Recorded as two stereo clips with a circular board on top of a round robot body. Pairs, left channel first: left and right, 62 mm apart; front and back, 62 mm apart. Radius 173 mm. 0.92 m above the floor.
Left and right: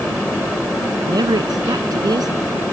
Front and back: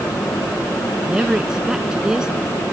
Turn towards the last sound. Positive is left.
turn(degrees=-100)